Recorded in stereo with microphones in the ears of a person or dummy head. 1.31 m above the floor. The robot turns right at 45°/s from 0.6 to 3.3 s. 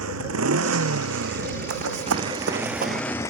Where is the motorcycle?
100° right; by 3.3 s 20° left.